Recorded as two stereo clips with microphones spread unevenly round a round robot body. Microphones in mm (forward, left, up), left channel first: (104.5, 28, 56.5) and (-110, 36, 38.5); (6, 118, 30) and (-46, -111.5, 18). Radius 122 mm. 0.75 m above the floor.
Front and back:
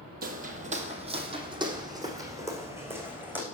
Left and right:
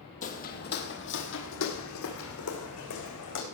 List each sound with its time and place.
0.2 s footsteps: 130° left, 1.5 m; by 3.4 s 95° left, 3 m